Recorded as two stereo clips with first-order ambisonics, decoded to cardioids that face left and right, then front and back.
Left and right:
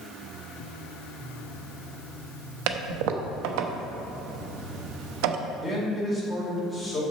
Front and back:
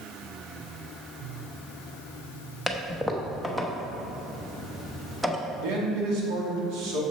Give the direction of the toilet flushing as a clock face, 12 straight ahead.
3 o'clock.